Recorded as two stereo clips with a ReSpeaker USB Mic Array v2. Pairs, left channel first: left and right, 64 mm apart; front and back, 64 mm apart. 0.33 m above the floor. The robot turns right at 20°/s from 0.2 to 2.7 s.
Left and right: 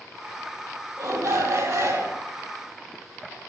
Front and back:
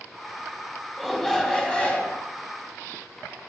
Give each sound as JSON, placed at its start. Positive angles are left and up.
{"t": 1.0, "sound": "a shout", "azimuth_deg": -85, "distance_m": 2.5}